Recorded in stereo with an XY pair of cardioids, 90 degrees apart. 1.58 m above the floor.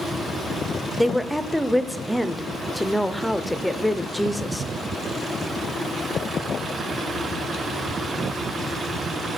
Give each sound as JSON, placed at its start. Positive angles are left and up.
{"t": 1.0, "sound": "a woman speaking", "azimuth_deg": 0, "distance_m": 0.6}